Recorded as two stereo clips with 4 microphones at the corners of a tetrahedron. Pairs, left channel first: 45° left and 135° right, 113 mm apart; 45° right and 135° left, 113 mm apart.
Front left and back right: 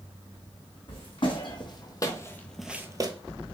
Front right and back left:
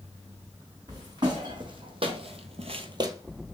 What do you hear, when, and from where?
0.9 s footsteps: 80° left, 1.8 m; by 3.1 s 170° right, 0.6 m